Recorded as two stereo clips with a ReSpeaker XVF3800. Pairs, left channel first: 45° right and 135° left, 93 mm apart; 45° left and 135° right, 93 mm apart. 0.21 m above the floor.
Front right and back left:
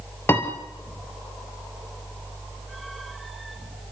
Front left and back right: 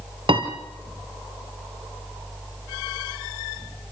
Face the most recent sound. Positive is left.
turn(degrees=-110)